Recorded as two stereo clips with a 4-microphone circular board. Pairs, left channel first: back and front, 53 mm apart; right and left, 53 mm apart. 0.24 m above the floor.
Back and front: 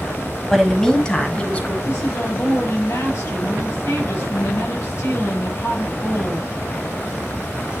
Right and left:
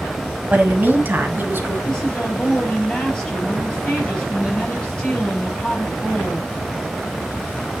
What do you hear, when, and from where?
0.5 s a woman speaking: 95° left, 1.6 m; by 1.7 s 120° left, 2.5 m
1.8 s a woman speaking: 165° right, 6 m